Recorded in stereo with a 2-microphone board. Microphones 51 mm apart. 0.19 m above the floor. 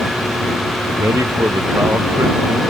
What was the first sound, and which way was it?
A man speaking, 75° right (ahead or behind).